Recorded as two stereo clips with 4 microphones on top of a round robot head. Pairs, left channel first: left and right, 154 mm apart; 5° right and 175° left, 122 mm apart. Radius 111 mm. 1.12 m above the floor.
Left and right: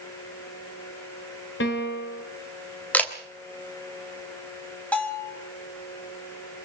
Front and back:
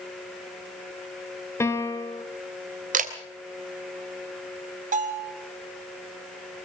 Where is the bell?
170° left, 4.5 m.